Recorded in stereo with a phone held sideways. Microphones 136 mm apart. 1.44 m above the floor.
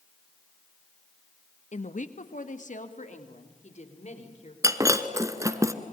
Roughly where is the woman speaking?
Left.